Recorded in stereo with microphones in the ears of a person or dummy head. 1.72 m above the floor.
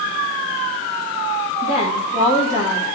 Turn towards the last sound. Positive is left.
turn(degrees=50)  # may be behind; listen again after turning